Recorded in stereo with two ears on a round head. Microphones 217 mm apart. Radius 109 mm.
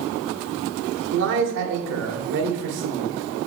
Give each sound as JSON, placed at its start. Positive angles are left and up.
{"t": 1.1, "sound": "a man speaking", "side_deg": -55, "distance_m": 1.6}